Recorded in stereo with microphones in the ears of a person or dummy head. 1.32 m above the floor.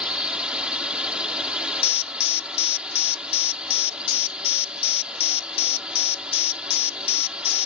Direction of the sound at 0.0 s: 5° right (ahead or behind).